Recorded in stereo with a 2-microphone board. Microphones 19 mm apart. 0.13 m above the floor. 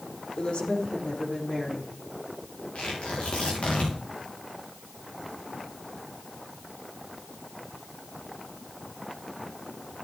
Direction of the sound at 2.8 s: 85° left.